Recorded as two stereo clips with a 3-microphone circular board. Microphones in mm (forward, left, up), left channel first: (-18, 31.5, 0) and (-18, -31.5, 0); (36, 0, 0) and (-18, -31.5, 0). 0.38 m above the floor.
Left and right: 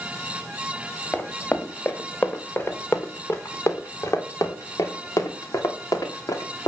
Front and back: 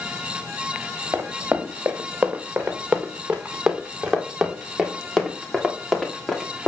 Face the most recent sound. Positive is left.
turn(degrees=110)